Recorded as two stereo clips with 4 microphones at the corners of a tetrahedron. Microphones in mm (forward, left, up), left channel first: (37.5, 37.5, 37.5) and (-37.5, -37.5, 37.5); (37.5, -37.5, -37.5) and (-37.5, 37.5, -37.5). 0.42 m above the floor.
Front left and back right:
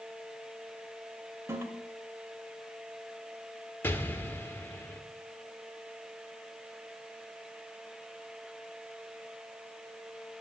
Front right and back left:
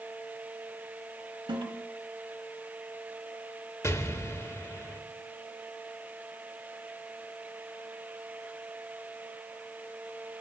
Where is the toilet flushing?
165° left, 1.6 m.